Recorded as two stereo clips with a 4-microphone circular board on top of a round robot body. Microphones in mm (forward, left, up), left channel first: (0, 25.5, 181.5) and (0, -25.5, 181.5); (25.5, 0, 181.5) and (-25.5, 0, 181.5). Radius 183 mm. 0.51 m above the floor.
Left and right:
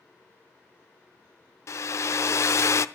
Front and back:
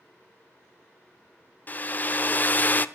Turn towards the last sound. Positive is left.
turn(degrees=60)